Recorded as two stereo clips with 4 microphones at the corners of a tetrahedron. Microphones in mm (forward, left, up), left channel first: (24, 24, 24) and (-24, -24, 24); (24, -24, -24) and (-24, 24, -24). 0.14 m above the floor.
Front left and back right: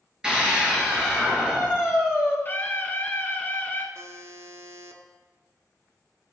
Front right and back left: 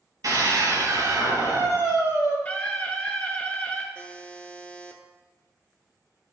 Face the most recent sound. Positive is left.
turn(degrees=-110)